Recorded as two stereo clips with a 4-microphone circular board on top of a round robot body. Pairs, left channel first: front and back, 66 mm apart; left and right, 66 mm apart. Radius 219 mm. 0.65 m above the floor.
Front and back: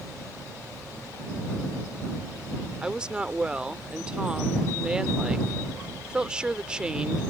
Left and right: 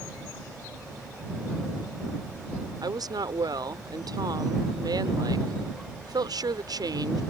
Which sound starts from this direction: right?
A woman speaking, at 2.8 s.